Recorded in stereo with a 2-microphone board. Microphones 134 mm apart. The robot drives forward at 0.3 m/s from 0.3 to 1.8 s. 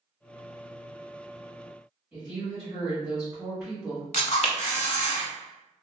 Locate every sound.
2.1 s a woman speaking: 10° right (ahead or behind), 1.6 m
4.1 s a camera shutter: 55° left (ahead or behind), 0.7 m